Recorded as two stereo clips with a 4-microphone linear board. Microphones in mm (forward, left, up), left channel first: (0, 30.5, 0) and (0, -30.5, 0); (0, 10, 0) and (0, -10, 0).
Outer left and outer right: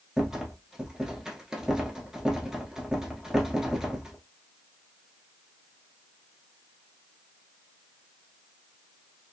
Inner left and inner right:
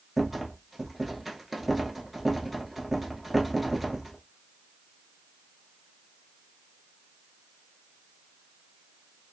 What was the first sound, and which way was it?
A rattle, 10° right (ahead or behind).